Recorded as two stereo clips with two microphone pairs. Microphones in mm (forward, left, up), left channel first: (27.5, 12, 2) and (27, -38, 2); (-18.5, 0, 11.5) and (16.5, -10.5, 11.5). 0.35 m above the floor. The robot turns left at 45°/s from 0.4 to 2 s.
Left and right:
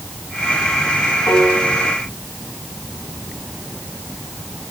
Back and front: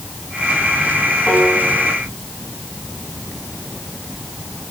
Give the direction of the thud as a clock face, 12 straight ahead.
No thud in this recording.